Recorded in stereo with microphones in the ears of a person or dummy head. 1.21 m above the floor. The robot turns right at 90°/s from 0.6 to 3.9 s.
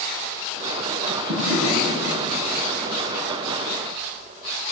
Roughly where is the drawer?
Behind right.